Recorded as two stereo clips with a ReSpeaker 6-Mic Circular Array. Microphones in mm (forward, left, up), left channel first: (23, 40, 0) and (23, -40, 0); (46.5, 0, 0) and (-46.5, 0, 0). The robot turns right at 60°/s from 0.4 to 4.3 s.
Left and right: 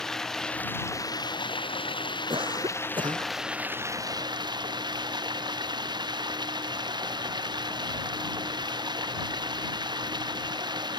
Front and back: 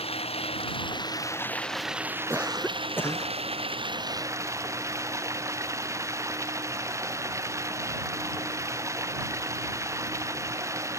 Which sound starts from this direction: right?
A cough, at 2.3 s.